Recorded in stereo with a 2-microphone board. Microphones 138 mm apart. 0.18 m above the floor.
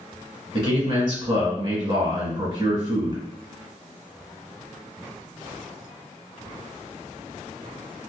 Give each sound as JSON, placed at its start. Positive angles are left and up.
{"t": 0.5, "sound": "a man speaking", "side_deg": -35, "distance_m": 1.2}